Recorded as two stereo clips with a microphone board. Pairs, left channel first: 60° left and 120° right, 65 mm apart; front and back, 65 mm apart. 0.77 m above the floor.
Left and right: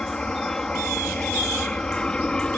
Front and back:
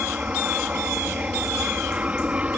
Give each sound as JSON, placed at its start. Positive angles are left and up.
{"t": 0.0, "sound": "an aircraft", "azimuth_deg": 130}